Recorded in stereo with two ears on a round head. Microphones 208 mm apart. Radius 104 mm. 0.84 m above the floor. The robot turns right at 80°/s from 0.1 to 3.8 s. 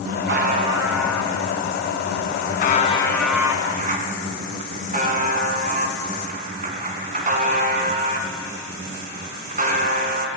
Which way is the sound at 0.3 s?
60° right.